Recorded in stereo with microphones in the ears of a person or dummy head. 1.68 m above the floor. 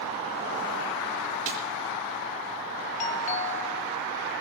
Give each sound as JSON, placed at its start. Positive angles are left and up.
{"t": 1.5, "sound": "a snare drum", "side_deg": -65, "distance_m": 2.0}
{"t": 3.0, "sound": "a doorbell", "side_deg": 35, "distance_m": 0.8}